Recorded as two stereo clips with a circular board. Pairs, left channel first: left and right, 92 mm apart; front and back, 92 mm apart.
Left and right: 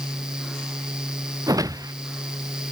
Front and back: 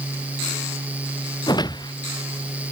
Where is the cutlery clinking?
I don't hear cutlery clinking.